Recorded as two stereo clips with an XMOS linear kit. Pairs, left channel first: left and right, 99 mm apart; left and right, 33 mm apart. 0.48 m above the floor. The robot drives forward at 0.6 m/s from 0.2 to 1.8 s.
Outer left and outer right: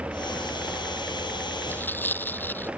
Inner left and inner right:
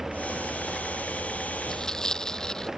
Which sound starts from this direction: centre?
Tearing paper, at 1.7 s.